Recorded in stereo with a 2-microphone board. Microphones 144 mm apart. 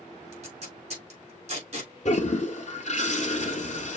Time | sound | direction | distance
0.3 | tape being pulled | 50° right (ahead or behind) | 4 m
2.0 | a toilet flushing | 55° left (ahead or behind) | 1.1 m